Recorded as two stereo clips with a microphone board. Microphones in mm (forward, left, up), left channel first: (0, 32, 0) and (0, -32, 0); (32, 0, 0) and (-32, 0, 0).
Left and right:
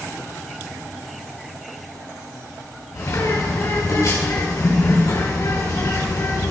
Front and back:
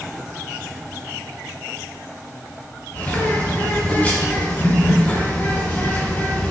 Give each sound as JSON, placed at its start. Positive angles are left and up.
{"t": 2.9, "sound": "a bird", "azimuth_deg": 65, "distance_m": 5.0}